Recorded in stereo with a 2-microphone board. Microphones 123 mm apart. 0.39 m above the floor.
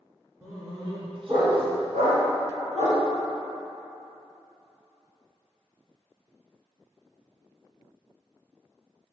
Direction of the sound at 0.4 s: 25° right (ahead or behind).